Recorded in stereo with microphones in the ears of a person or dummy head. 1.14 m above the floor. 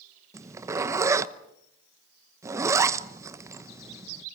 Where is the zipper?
25° right (ahead or behind), 0.9 m.